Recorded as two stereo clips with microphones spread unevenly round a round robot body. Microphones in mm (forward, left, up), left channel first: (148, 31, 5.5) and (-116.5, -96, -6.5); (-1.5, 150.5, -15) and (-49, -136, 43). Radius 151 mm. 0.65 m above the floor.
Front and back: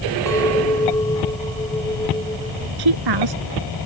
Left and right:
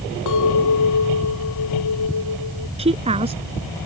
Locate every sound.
0.3 s a clink: 105° left
2.8 s a woman speaking: 170° right